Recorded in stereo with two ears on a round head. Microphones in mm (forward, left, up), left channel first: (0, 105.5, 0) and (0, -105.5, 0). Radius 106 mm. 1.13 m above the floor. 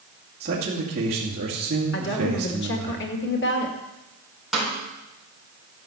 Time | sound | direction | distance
0.4 | a man speaking | 40° right (ahead or behind) | 2.5 m
1.9 | a woman speaking | 50° left (ahead or behind) | 2.0 m
4.5 | a snare drum | centre (ahead or behind) | 4 m